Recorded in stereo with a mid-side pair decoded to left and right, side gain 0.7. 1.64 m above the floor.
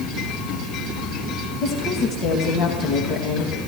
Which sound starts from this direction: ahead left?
A woman speaking, at 1.6 s.